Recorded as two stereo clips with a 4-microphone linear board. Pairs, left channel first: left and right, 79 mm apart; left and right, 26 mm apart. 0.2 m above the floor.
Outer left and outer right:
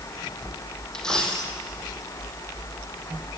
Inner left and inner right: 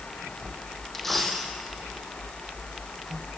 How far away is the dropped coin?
About 3.5 m.